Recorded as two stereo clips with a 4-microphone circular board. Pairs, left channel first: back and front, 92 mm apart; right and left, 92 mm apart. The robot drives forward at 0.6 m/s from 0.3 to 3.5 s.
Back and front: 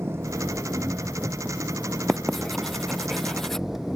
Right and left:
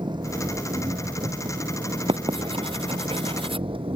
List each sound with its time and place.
0.0 s an engine running: 60° left; by 4.0 s 85° left
2.1 s writing: 90° left; by 3.7 s 95° left